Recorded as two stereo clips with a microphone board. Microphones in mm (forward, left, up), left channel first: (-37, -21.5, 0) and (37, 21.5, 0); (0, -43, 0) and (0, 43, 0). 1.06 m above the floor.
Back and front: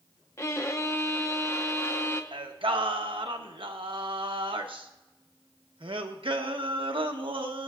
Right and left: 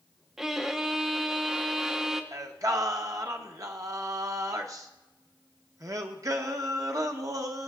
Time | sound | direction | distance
0.4 | a violin | 175° left | 0.8 m
2.3 | singing | 40° left | 0.9 m